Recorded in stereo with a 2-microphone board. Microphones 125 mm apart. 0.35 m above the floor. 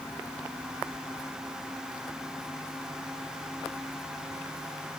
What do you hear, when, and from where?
Only background noise.